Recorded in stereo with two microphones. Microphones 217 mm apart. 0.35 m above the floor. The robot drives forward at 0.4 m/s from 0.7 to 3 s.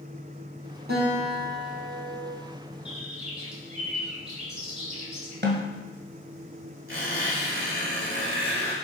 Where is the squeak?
70° right (ahead or behind), 3.5 m.